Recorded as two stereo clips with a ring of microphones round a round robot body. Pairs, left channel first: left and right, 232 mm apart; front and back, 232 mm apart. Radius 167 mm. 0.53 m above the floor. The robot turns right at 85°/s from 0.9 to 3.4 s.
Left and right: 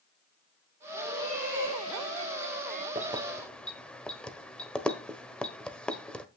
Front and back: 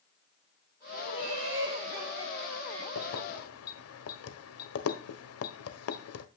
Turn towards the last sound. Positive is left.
turn(degrees=5)